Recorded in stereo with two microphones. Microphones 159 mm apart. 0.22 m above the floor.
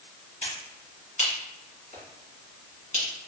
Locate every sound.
0.4 s a finger snap: 50° left (ahead or behind), 2.0 m